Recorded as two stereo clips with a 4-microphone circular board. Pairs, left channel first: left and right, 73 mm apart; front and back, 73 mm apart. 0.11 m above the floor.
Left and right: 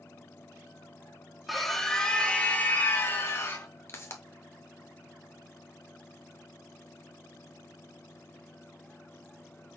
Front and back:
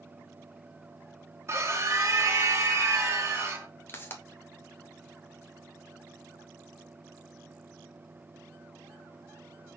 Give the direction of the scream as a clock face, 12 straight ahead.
6 o'clock.